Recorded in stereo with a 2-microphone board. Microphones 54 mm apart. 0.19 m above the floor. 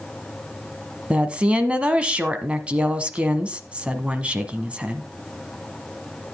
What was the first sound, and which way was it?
A woman speaking, 20° right (ahead or behind).